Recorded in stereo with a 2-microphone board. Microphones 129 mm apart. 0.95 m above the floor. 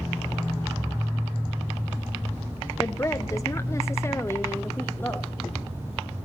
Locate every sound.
2.8 s a woman speaking: 20° left (ahead or behind), 0.7 m; by 5.3 s 15° left (ahead or behind), 1.6 m